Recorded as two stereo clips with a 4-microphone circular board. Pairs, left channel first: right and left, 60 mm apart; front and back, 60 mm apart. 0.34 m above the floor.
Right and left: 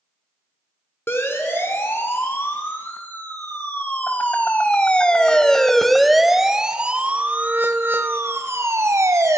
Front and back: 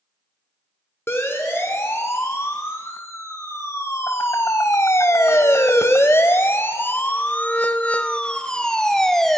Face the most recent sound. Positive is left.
turn(degrees=85)